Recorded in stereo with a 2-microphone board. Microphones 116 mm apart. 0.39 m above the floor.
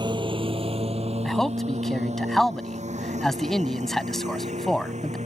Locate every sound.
0.0 s a lawn mower: 40° right (ahead or behind); by 5.3 s 80° right
1.2 s a man speaking: 5° left (ahead or behind)